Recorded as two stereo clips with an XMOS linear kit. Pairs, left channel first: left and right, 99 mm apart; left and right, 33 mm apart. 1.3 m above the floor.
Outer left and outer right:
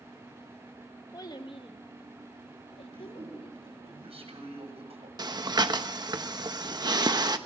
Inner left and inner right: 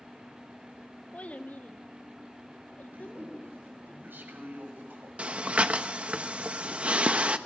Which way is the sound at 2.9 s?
80° right.